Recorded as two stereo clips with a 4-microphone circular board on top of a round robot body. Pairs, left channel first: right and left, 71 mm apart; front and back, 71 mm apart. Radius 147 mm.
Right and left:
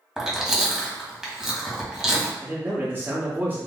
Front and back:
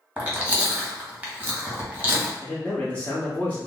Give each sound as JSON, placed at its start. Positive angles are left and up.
{"t": 0.2, "sound": "chewing", "azimuth_deg": 155, "distance_m": 1.4}
{"t": 2.4, "sound": "a man speaking", "azimuth_deg": 50, "distance_m": 1.1}